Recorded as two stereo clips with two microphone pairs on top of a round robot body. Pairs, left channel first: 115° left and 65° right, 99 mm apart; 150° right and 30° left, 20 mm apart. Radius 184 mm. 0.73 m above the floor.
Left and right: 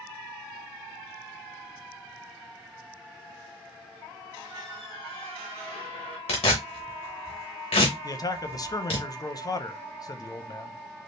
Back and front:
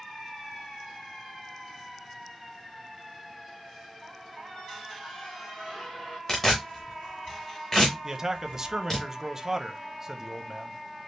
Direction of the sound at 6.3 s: 140° left.